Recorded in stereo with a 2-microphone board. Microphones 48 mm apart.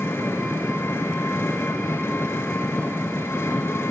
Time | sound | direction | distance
0.0 | an engine running | 65° left (ahead or behind) | 0.8 m